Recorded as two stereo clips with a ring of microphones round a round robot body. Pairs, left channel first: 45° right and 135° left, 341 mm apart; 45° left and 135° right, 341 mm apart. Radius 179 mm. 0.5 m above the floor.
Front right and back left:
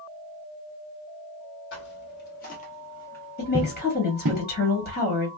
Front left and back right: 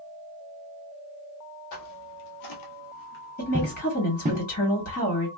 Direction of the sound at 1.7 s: 10° left.